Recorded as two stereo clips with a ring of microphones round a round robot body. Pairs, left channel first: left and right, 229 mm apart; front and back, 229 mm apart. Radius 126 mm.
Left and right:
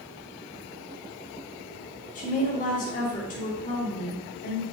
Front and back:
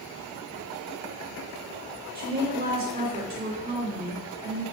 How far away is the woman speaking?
About 2.5 m.